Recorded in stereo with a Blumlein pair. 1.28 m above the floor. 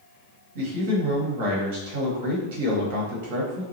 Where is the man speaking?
50° right, 1.1 m.